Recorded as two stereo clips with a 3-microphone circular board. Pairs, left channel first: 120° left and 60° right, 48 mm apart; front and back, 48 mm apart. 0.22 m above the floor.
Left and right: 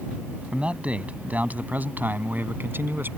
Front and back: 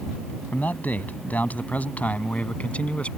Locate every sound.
0.5 s a man speaking: 10° right; by 3.1 s 55° right